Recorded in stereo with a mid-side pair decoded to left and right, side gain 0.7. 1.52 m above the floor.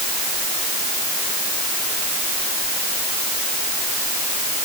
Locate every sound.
Only background noise.